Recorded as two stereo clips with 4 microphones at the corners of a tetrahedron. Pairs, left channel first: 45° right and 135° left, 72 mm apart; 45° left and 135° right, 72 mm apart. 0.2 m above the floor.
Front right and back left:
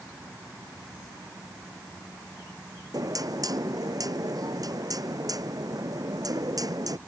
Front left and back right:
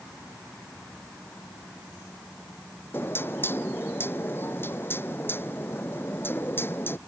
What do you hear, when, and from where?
2.9 s knocking: 105° left